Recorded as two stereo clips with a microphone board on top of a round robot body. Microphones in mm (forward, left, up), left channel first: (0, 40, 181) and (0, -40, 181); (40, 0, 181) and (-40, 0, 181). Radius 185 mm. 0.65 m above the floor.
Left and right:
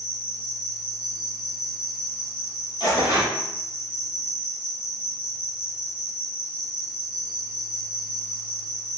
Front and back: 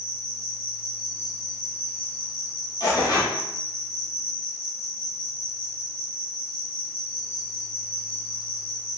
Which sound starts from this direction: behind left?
An insect, at 0.0 s.